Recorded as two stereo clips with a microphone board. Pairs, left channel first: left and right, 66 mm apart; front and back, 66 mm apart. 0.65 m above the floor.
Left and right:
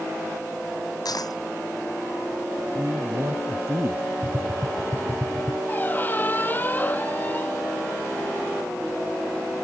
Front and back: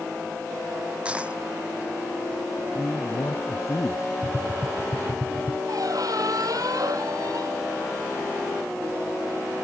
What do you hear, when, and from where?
1.1 s a dropped coin: 110° left
2.8 s a man speaking: 40° right
4.2 s tapping: 115° right
5.7 s a squeak: 155° left